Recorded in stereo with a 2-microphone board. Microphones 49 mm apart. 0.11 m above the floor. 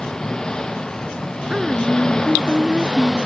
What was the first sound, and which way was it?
An engine running, 15° left (ahead or behind).